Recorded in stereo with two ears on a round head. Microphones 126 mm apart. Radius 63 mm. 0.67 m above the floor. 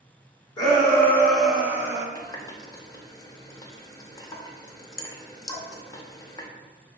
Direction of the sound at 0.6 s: 30° left (ahead or behind).